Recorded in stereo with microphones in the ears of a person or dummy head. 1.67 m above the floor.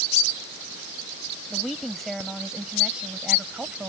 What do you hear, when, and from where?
1.5 s a woman speaking: 5° left (ahead or behind); by 3.9 s 10° right (ahead or behind)